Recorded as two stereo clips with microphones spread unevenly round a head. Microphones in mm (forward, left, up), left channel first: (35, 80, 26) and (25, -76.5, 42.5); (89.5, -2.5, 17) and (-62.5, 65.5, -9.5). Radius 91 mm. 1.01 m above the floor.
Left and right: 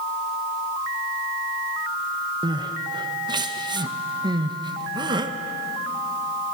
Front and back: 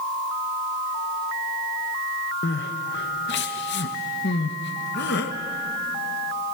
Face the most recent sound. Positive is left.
turn(degrees=-30)